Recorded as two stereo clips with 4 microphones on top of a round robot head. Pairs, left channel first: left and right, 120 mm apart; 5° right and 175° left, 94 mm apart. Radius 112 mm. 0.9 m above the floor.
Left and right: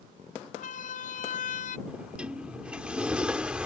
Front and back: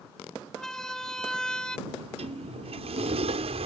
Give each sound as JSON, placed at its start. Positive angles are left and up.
{"t": 0.6, "sound": "a siren", "azimuth_deg": 85}
{"t": 1.9, "sound": "a sliding door", "azimuth_deg": -170}